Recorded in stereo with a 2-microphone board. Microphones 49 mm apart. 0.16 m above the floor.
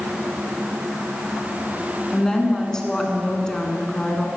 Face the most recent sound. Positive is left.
turn(degrees=15)  # may be behind; listen again after turning